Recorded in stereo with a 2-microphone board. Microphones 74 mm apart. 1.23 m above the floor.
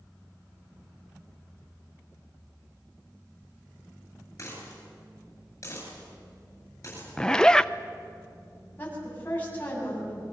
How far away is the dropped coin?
About 9.5 m.